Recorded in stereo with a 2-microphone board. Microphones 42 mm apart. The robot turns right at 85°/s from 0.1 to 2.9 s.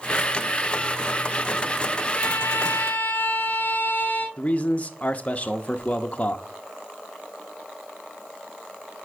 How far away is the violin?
About 1.7 m.